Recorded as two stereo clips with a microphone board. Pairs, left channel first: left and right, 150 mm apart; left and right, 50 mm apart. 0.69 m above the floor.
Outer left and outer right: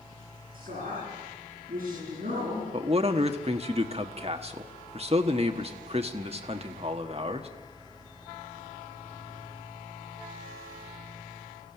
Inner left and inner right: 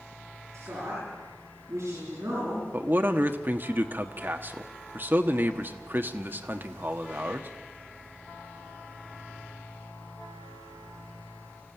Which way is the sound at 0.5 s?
65° right (ahead or behind).